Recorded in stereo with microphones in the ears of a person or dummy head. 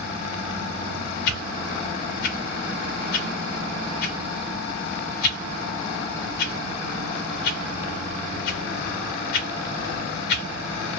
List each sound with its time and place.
1.3 s a whoosh: 60° left (ahead or behind), 1.4 m